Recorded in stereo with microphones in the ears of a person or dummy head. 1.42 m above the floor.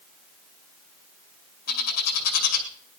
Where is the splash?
No splash in this recording.